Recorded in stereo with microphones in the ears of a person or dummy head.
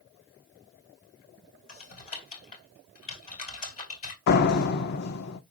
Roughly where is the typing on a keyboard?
Left.